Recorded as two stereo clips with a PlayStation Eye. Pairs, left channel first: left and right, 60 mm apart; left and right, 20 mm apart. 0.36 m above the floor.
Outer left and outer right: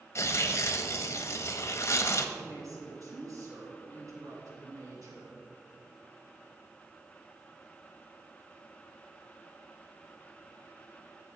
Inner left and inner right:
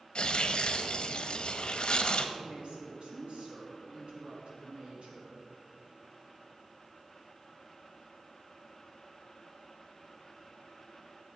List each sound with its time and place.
0.1 s tearing paper: 50° left (ahead or behind), 0.8 m
2.4 s a woman speaking: 70° right (ahead or behind), 3.5 m